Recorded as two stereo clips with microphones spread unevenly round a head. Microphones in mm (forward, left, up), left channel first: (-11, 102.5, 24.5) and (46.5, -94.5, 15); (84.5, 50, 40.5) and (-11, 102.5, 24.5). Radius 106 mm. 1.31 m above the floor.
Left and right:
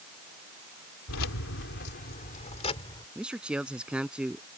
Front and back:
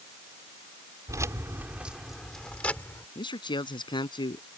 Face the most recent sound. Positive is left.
turn(degrees=10)